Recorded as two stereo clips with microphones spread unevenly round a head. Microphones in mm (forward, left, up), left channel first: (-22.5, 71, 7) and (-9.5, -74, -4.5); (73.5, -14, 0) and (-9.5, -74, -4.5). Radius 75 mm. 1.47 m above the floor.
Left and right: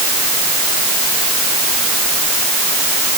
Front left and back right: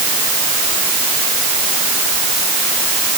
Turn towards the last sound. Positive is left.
No sound to turn to.